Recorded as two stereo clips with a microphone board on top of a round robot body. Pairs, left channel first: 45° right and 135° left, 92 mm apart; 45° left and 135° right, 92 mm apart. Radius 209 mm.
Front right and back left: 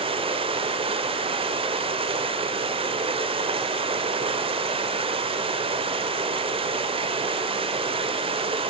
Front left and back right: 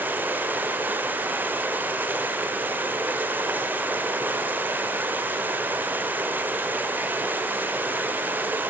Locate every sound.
0.0 s running water: 155° left, 0.8 m